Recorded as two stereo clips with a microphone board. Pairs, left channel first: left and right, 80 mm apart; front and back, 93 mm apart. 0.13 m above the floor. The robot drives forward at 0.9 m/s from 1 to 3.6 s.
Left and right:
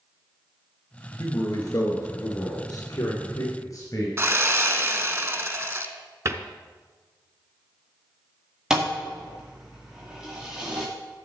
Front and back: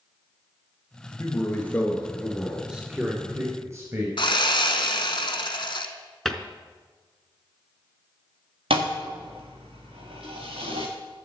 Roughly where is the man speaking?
Ahead left.